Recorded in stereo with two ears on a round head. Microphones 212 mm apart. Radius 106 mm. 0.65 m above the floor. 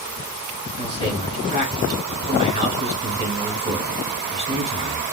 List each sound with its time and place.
0.8 s a man speaking: 30° right (ahead or behind), 4 m